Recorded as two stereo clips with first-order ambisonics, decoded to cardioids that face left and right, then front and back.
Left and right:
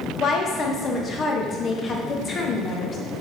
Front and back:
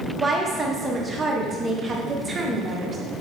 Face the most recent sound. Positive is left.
turn(degrees=125)